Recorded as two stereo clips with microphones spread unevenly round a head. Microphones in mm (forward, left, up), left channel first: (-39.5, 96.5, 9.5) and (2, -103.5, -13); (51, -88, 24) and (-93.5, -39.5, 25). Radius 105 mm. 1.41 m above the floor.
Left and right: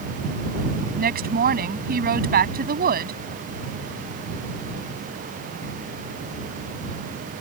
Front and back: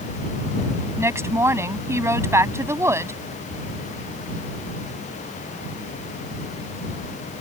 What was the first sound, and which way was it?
A woman speaking, 125° right.